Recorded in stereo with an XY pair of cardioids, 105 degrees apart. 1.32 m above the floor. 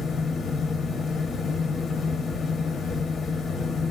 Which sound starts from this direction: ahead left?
A fan, at 0.0 s.